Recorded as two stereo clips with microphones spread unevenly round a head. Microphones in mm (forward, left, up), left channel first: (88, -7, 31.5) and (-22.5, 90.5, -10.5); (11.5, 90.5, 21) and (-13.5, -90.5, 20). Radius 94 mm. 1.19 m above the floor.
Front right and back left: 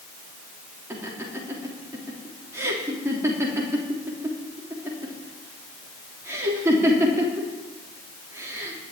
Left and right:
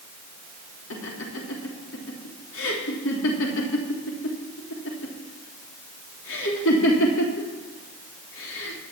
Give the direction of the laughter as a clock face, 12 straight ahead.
10 o'clock.